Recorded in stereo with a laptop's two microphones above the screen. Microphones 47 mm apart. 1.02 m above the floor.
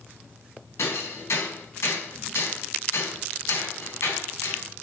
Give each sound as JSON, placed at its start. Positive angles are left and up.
{"t": 0.8, "sound": "hammering", "side_deg": 80, "distance_m": 4.5}